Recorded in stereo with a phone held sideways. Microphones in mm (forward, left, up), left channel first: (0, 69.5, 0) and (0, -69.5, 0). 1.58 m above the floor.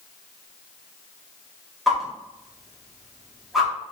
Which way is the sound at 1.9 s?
Centre (ahead or behind).